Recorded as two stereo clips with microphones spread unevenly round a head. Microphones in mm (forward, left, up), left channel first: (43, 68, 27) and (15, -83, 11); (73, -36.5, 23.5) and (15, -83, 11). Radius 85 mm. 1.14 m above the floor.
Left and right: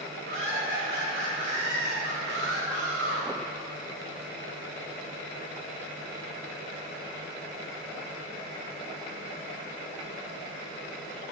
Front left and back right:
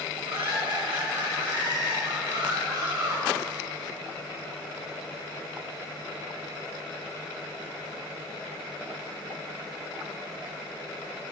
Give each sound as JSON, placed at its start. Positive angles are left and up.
{"t": 0.3, "sound": "laughter", "azimuth_deg": -140, "distance_m": 4.5}